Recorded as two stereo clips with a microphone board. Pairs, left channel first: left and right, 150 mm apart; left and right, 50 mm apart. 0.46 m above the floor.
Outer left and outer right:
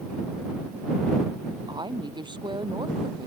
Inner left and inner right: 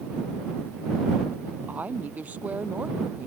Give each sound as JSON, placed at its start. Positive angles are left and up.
{"t": 1.7, "sound": "a woman speaking", "side_deg": -30}